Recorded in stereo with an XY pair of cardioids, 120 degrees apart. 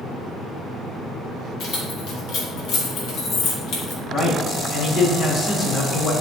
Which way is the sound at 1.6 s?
70° left.